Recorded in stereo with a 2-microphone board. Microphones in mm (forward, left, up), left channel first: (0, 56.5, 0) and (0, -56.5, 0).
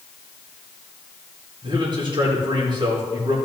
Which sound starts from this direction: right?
A man speaking, at 1.6 s.